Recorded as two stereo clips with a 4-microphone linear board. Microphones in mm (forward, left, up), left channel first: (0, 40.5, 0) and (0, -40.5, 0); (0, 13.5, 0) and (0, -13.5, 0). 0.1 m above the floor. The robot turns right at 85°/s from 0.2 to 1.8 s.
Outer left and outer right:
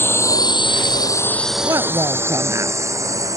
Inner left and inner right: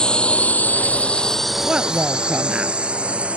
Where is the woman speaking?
40° right (ahead or behind).